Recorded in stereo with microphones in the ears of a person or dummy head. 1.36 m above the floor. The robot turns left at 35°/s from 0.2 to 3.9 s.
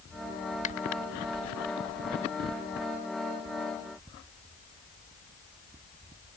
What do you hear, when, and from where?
0.6 s a finger snap: 40° left (ahead or behind)